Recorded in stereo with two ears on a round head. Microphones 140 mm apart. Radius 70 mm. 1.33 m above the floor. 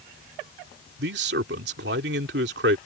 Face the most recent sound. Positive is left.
turn(degrees=-80)